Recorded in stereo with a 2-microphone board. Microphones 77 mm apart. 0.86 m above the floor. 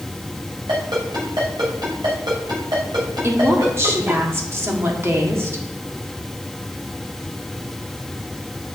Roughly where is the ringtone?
Right.